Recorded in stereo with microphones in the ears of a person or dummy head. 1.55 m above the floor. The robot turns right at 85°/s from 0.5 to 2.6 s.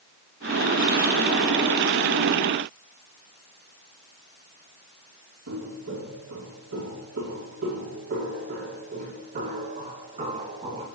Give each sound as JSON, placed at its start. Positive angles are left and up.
{"t": 5.5, "sound": "footsteps", "side_deg": -75, "distance_m": 5.0}